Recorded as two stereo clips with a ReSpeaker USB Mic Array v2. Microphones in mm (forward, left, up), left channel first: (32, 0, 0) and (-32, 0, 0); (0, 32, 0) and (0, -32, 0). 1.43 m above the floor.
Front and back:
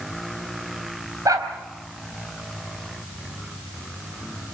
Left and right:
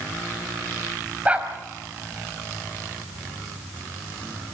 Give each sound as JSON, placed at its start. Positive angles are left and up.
{"t": 1.2, "sound": "a dog barking", "azimuth_deg": -160, "distance_m": 4.0}